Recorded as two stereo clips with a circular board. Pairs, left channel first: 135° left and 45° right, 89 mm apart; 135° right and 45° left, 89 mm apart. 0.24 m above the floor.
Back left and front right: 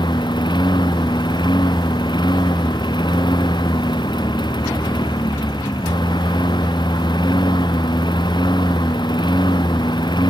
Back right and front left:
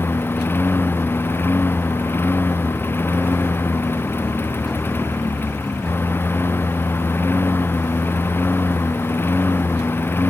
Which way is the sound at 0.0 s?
160° left.